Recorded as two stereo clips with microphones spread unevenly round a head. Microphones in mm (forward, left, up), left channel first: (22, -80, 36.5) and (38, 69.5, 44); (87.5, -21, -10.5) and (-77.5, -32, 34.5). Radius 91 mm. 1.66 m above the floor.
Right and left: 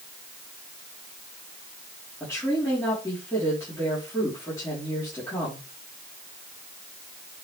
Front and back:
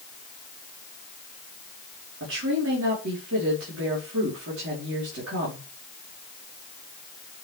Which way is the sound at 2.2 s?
170° right.